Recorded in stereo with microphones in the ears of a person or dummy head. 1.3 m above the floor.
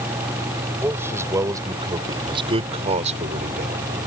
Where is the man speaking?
15° right (ahead or behind); by 3.8 s 50° right (ahead or behind).